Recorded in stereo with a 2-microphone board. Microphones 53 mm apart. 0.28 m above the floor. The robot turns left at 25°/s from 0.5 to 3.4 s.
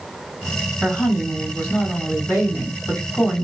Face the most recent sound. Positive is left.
turn(degrees=105)